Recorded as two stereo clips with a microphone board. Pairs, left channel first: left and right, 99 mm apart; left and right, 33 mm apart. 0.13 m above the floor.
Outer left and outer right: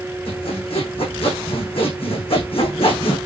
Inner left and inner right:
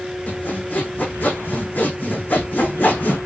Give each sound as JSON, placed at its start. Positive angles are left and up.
{"t": 0.3, "sound": "sawing", "side_deg": 70, "distance_m": 6.5}